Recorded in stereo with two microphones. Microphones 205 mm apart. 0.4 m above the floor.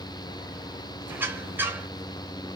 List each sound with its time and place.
1.1 s a squeak: 10° right (ahead or behind), 1.0 m